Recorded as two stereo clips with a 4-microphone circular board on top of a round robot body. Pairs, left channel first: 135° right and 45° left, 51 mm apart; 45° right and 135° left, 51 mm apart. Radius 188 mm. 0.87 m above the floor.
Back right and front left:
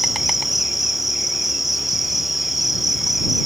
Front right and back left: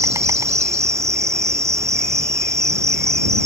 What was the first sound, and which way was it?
An insect, 130° left.